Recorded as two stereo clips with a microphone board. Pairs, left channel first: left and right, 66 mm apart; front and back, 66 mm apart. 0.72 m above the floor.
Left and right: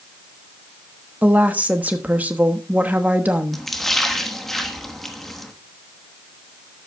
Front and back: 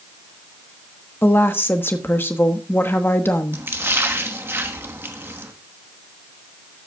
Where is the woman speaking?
35° right, 1.1 m.